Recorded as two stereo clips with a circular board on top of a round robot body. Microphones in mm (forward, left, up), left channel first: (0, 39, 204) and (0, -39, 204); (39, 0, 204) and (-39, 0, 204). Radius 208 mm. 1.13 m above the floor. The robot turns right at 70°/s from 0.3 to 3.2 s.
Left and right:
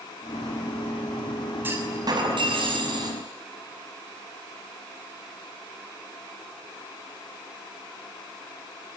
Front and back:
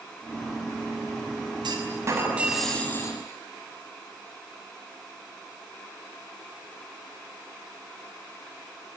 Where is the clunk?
155° right, 5.5 m; by 3.2 s 50° right, 5.5 m.